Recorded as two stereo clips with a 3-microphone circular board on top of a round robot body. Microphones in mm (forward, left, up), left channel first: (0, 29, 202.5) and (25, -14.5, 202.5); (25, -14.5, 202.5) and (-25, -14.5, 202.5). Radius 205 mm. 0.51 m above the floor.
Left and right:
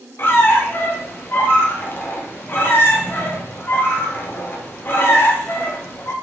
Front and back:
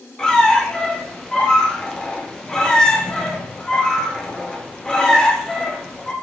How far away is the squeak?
About 0.6 m.